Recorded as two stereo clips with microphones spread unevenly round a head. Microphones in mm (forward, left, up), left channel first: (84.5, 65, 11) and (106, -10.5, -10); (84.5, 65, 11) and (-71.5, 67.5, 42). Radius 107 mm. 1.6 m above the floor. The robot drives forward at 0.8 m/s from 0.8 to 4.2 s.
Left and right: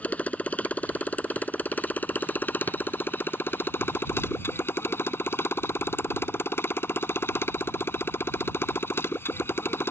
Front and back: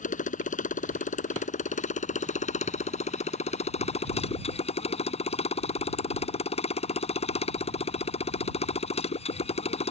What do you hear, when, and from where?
0.0 s a motorcycle: 35° left; by 9.9 s 50° left